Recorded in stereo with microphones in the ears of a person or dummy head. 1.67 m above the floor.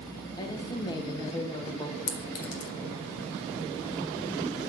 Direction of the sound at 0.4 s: 25° left (ahead or behind).